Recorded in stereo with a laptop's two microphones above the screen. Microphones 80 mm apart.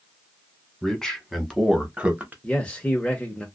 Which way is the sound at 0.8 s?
10° left (ahead or behind).